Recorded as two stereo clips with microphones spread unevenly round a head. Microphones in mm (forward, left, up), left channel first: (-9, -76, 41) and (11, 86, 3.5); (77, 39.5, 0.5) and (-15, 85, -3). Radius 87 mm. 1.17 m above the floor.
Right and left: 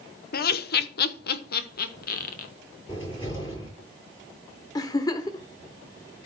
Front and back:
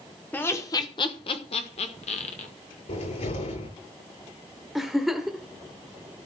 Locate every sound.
0.3 s laughter: 100° right, 0.8 m; by 2.5 s 55° right, 1.8 m
2.9 s a cupboard door: 20° right, 8.5 m
4.8 s a giggle: 115° right, 0.9 m